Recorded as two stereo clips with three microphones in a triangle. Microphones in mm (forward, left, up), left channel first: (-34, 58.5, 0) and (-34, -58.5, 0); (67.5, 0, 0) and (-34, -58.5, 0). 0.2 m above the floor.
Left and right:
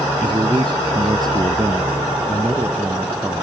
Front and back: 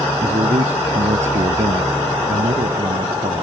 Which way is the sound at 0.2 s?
140° right.